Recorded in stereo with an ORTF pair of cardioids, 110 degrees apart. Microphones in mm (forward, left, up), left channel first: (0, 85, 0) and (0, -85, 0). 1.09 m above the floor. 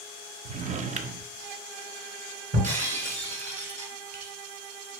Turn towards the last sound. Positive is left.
turn(degrees=-45)